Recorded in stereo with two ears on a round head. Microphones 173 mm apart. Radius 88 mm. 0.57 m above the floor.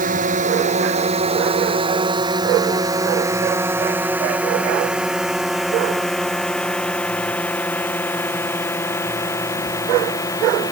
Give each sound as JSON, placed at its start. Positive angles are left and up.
{"t": 0.0, "sound": "a drone", "side_deg": -45}